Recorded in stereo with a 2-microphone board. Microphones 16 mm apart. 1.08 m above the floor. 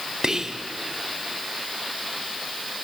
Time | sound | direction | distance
0.2 | whispering | 40° right (ahead or behind) | 0.5 m